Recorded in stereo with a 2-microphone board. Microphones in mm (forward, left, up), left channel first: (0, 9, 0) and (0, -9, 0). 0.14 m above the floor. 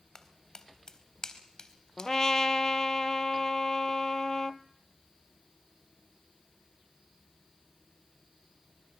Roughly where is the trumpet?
Left.